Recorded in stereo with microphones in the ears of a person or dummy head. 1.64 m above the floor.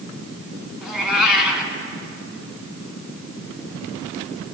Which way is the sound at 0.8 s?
5° right (ahead or behind).